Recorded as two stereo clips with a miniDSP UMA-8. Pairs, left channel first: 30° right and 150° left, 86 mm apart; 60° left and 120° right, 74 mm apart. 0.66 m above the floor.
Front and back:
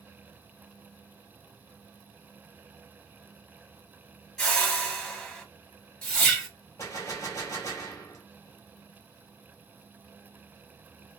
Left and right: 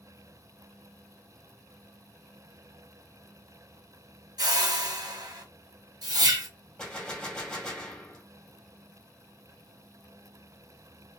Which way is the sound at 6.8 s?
10° right.